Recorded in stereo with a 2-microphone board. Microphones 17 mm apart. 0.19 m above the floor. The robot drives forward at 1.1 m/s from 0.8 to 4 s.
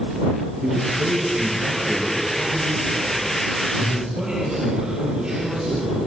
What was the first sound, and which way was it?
A man speaking, 70° right (ahead or behind).